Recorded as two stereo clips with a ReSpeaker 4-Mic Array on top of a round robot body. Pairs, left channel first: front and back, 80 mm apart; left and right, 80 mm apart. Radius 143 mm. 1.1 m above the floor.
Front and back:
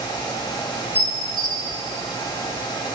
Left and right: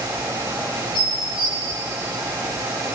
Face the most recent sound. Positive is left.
turn(degrees=-15)